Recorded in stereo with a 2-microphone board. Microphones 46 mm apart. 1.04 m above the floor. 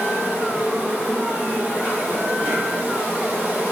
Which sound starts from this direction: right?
An insect, at 0.0 s.